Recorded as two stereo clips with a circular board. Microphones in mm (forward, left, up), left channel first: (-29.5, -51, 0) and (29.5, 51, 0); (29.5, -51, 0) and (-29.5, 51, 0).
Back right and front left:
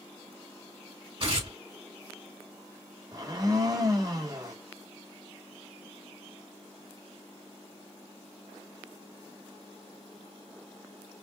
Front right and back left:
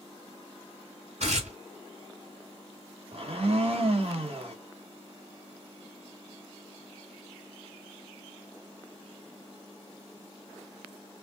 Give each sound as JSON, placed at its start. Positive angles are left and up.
{"t": 1.2, "sound": "tearing paper", "azimuth_deg": 105, "distance_m": 3.5}
{"t": 3.1, "sound": "a blender", "azimuth_deg": 110, "distance_m": 1.9}